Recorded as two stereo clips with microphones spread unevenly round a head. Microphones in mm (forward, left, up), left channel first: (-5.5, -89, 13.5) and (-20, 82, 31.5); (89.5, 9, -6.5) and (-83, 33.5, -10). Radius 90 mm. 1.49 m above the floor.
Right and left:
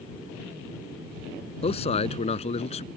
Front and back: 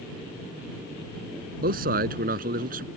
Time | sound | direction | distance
1.6 | a man speaking | 145° right | ?